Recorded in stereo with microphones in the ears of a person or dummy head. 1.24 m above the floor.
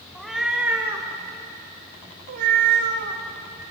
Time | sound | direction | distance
0.1 | a cat meowing | centre (ahead or behind) | 2.0 m